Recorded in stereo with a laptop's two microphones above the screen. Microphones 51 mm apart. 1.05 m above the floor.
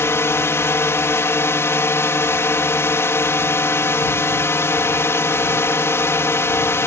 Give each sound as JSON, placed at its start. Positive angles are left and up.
{"t": 0.0, "sound": "a drone", "side_deg": 60}